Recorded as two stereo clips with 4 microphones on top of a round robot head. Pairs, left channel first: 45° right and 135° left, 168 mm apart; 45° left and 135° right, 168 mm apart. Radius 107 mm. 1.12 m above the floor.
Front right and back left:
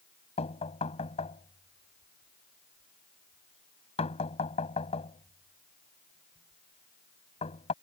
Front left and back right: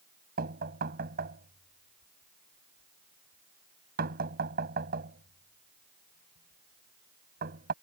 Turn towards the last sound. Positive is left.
turn(degrees=-100)